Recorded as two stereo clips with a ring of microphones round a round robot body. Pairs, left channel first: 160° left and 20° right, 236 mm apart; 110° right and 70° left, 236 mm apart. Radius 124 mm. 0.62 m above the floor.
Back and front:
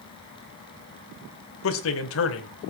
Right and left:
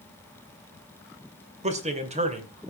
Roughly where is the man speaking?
Behind left.